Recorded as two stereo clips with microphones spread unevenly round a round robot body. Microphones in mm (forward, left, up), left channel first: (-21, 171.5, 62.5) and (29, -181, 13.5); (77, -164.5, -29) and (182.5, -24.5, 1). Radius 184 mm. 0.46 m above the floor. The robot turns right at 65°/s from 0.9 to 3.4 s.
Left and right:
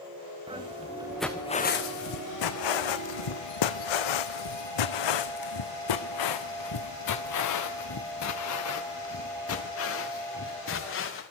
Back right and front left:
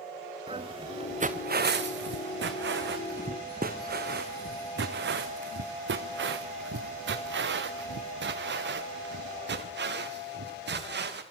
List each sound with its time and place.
0.5 s footsteps: 5° right, 3 m; by 11.2 s 40° left, 5.5 m